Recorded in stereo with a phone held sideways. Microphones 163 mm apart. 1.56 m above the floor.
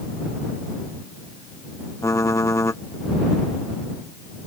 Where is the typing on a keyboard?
20° left (ahead or behind).